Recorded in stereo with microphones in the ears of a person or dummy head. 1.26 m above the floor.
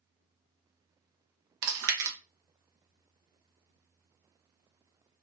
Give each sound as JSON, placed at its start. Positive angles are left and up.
{"t": 1.6, "sound": "chewing", "side_deg": -80, "distance_m": 0.7}